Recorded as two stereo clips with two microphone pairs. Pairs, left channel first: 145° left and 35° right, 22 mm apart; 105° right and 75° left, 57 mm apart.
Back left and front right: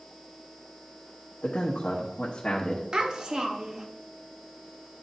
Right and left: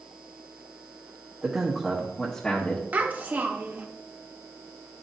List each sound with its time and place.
1.4 s a man speaking: 140° left, 1.4 m; by 2.8 s 170° right, 1.3 m
2.9 s a child speaking: 15° left, 1.2 m